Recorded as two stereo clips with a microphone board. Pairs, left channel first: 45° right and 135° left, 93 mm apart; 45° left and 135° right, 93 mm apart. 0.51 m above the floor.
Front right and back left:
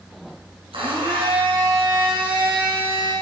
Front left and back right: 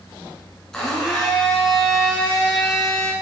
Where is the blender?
130° left, 4 m.